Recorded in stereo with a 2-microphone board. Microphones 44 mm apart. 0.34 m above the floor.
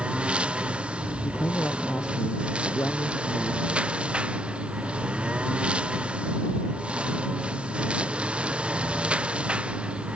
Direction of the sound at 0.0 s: 20° right (ahead or behind).